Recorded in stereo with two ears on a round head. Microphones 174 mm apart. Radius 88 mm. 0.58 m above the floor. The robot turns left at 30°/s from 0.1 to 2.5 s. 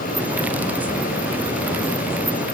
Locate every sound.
Only background noise.